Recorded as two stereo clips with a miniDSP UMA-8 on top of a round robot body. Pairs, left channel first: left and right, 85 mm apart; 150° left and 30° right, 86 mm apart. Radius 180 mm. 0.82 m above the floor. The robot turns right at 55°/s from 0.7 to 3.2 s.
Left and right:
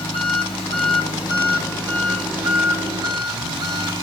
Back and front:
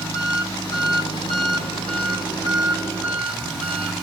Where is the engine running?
100° left, 5 m; by 4.0 s 125° right, 5 m.